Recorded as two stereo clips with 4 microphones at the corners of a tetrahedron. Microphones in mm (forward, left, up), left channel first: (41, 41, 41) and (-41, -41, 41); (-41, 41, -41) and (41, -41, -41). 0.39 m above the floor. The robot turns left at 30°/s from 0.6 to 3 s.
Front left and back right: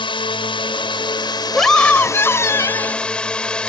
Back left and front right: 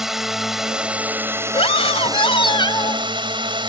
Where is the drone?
40° left; by 3.7 s 35° right.